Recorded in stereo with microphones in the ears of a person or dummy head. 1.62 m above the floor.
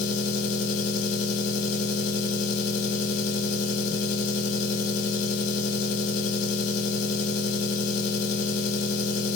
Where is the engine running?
50° left (ahead or behind), 1.3 m.